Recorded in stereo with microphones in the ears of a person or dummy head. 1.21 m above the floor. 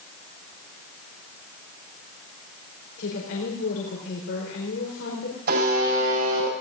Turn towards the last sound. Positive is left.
turn(degrees=-65)  # may be behind; listen again after turning